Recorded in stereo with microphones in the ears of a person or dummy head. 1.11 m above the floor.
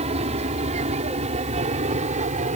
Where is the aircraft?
35° right (ahead or behind).